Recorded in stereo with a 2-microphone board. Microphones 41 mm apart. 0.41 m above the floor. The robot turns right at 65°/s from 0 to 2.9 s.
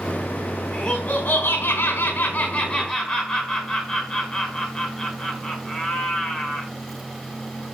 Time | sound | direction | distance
0.7 | laughter | 10° left | 4.5 m